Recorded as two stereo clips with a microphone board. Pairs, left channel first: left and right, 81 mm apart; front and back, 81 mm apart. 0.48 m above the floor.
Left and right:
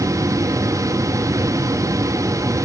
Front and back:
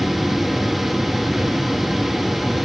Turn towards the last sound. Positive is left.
No sound to turn to.